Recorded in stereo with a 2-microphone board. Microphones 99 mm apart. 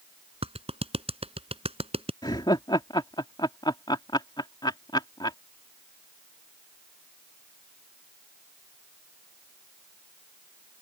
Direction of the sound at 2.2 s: 50° left (ahead or behind).